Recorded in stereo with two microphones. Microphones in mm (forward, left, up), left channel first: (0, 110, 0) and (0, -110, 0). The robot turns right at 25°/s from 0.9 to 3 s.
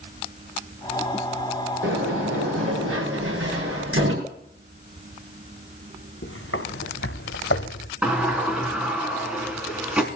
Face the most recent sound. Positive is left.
turn(degrees=-5)  # may be behind; listen again after turning